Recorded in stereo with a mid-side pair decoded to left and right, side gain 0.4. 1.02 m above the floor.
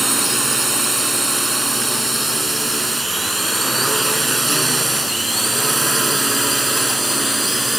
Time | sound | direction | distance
0.0 | a drone | 20° right | ?